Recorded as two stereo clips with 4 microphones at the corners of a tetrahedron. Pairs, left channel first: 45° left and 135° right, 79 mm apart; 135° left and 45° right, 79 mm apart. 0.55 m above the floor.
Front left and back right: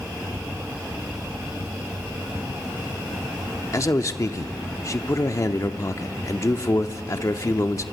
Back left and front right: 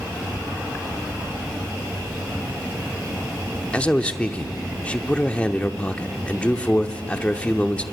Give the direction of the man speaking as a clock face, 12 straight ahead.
10 o'clock.